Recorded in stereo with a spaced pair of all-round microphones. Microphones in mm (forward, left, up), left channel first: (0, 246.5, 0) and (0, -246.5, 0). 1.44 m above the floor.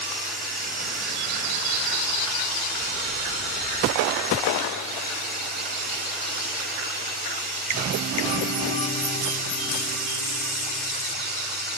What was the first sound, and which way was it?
Running water, 20° right (ahead or behind).